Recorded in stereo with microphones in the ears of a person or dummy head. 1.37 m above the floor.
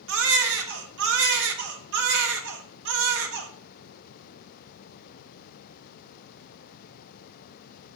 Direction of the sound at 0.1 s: 65° right (ahead or behind).